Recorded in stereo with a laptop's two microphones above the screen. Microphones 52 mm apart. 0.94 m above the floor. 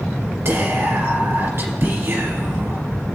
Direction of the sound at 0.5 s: 55° right (ahead or behind).